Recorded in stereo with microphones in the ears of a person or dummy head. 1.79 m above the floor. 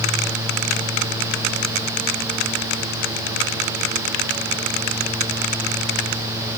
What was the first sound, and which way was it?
Only background noise.